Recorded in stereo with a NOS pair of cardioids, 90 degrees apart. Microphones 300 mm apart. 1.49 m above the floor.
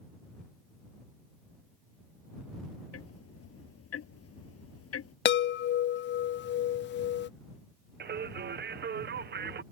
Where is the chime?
40° left.